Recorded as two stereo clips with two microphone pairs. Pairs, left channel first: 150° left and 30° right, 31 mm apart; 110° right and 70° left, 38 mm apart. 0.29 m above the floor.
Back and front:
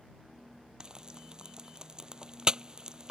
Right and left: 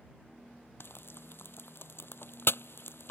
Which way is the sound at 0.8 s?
95° right.